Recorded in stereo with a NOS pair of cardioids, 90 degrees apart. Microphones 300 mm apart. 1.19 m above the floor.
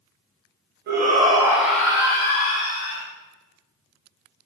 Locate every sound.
0.9 s a shout: 35° right, 0.9 m; by 3.0 s 35° left, 1.5 m